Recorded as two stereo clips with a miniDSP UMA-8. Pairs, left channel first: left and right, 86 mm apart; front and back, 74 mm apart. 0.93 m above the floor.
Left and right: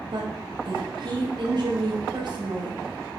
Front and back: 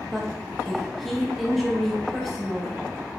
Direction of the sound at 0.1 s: 90° right.